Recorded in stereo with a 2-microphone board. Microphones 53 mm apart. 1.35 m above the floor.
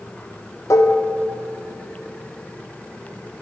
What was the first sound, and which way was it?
Dishes clattering, 70° left (ahead or behind).